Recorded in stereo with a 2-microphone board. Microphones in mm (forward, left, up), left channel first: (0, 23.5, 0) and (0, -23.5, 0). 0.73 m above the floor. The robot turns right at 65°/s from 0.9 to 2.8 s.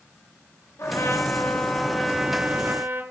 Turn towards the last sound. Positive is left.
turn(degrees=-130)